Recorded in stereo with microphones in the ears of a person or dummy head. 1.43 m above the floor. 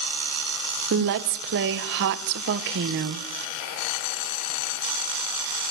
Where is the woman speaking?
60° right (ahead or behind), 0.9 m.